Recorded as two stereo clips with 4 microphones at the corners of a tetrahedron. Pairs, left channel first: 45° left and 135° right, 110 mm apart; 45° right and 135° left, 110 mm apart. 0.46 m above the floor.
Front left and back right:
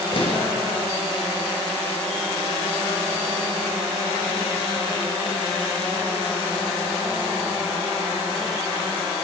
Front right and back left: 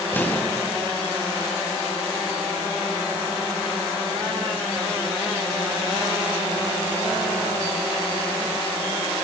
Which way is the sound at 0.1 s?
25° left.